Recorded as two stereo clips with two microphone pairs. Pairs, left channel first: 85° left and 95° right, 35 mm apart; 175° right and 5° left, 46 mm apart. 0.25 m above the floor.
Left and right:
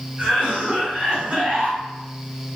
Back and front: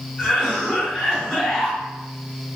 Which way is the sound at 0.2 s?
115° right.